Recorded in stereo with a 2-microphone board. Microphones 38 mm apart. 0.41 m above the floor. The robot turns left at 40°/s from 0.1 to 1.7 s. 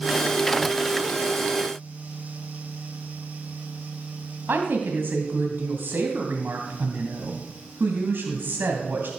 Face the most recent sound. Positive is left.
turn(degrees=-65)  # may be behind; listen again after turning